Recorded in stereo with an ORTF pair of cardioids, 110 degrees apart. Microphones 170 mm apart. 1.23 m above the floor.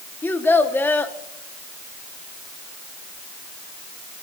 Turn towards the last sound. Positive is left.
turn(degrees=10)